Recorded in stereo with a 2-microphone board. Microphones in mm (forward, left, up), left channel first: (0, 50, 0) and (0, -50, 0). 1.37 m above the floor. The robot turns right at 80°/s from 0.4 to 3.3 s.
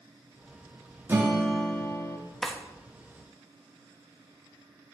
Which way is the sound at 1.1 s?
30° right.